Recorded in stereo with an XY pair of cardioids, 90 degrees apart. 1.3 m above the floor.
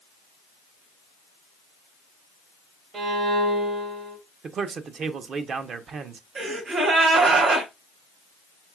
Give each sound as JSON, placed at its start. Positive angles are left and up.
{"t": 2.9, "sound": "a violin", "azimuth_deg": -65, "distance_m": 1.3}
{"t": 4.4, "sound": "a man speaking", "azimuth_deg": -65, "distance_m": 0.7}
{"t": 6.3, "sound": "a gasp", "azimuth_deg": -65, "distance_m": 2.5}